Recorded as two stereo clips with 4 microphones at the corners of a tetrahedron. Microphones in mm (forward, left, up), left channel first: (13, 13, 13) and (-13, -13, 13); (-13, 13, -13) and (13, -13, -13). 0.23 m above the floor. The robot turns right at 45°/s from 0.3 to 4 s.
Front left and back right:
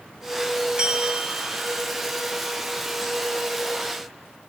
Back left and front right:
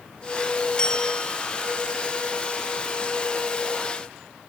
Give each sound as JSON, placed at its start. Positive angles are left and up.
{"t": 0.8, "sound": "a bell", "azimuth_deg": 180, "distance_m": 1.6}